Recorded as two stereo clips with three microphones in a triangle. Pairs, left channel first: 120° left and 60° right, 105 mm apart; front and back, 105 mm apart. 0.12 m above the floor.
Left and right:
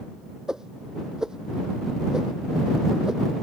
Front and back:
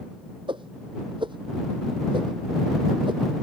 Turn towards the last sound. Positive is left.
turn(degrees=-145)